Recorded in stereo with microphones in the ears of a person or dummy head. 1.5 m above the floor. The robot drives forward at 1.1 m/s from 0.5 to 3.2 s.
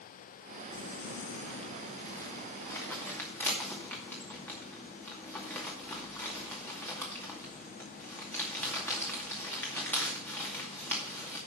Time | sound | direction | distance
0.7 | crumpling | 30° left (ahead or behind) | 0.8 m